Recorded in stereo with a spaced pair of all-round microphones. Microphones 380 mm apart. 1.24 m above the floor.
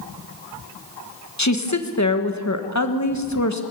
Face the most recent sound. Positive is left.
turn(degrees=45)  # may be behind; listen again after turning